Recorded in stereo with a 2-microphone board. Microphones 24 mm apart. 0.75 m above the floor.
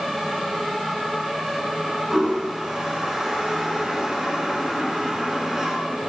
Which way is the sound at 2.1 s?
25° right (ahead or behind).